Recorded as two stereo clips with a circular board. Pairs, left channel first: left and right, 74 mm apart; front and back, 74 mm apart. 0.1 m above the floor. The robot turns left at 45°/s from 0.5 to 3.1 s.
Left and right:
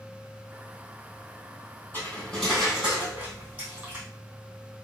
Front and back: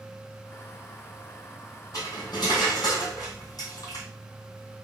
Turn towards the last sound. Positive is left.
turn(degrees=-25)